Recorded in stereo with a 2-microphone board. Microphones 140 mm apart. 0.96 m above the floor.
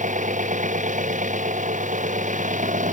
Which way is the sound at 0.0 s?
65° right (ahead or behind).